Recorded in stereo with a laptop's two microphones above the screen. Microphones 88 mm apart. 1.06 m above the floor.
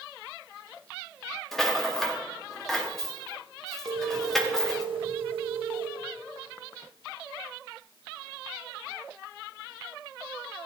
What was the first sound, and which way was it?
A rattle, 5° left (ahead or behind).